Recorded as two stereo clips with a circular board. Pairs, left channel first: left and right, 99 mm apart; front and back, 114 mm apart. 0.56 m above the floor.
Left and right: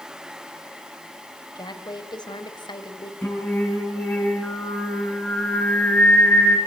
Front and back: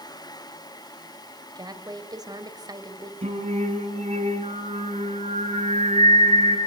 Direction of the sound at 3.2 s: 165° left.